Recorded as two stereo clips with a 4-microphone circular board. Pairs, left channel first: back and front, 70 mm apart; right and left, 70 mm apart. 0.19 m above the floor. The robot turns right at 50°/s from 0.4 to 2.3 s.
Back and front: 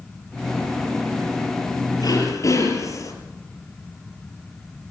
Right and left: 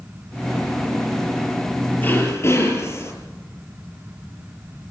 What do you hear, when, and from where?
2.0 s throat clearing: 155° right, 5.5 m; by 3.1 s 140° right, 5.5 m